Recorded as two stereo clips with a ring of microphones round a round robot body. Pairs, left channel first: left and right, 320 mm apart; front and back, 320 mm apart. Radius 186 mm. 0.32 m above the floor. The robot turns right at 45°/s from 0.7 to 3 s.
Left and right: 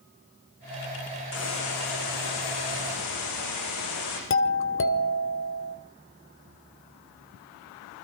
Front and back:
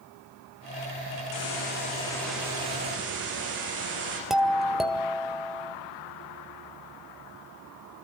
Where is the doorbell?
90° left, 1.9 m.